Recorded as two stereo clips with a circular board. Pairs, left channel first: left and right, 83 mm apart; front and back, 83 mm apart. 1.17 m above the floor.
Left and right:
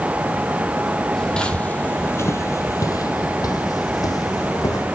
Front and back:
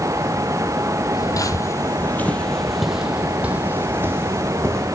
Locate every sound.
1.1 s footsteps: 10° left, 1.8 m; by 4.9 s 130° left, 3 m